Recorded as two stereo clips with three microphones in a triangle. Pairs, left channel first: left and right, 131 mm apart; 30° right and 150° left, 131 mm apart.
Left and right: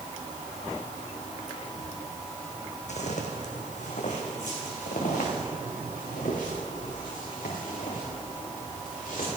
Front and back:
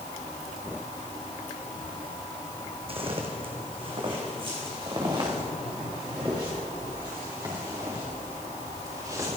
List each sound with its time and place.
2.9 s footsteps: 110° left, 1.8 m; by 9.3 s 90° left, 5.5 m